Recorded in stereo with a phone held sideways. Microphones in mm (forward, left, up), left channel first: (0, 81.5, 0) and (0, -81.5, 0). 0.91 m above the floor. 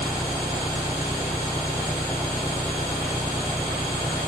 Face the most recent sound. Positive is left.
turn(degrees=0)  # may be behind; listen again after turning